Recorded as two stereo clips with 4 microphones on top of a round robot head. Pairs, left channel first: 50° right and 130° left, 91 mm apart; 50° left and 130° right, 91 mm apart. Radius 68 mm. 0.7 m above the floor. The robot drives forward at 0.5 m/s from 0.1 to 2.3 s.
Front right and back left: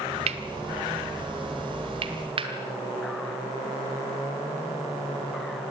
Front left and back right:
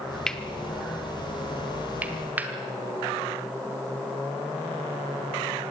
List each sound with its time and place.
0.3 s cutlery clinking: 135° left, 0.9 m; by 5.7 s 160° left, 1.8 m